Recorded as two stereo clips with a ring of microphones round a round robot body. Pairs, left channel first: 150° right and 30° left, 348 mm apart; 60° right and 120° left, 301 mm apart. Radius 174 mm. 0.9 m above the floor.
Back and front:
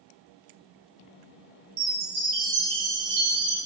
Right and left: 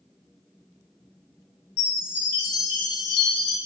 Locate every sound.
1.8 s a chime: 20° right, 4.5 m